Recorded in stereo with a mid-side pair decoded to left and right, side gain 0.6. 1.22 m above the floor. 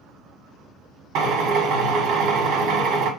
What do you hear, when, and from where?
1.1 s a drill: 70° right, 1.8 m